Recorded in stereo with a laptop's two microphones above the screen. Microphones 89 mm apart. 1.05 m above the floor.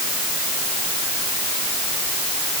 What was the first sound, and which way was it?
Only background noise.